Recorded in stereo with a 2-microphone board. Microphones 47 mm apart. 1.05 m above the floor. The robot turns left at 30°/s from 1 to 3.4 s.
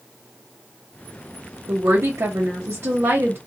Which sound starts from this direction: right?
A woman speaking, at 1.7 s.